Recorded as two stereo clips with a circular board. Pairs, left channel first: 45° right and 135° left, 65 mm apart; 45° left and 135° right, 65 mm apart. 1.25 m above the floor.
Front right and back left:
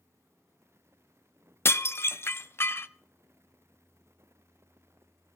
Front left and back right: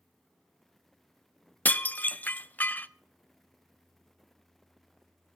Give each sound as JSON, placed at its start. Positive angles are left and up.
{"t": 1.6, "sound": "dishes clattering", "azimuth_deg": -10, "distance_m": 0.5}